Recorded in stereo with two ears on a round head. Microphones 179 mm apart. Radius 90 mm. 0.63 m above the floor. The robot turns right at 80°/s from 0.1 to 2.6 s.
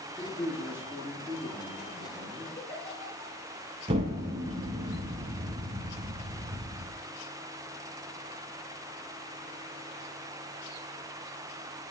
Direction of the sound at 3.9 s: 30° right (ahead or behind).